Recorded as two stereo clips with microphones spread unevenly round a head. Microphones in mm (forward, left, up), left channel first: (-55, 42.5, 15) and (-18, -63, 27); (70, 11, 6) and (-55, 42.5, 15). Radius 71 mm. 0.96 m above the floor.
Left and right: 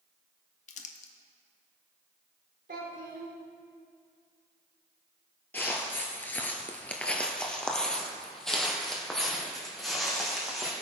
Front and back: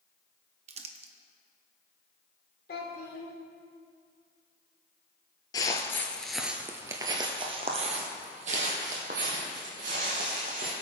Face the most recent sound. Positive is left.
turn(degrees=-160)